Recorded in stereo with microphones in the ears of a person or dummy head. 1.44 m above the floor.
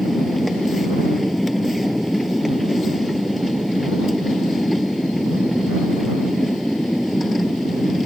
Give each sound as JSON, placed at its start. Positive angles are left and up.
{"t": 0.0, "sound": "a machine running", "side_deg": 0}